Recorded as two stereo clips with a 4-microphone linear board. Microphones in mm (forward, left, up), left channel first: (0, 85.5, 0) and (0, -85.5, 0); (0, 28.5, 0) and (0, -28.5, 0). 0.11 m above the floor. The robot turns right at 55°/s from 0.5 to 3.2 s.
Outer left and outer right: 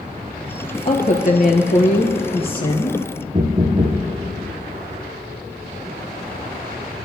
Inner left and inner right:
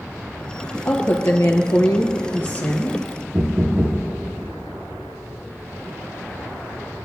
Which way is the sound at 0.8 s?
45° left.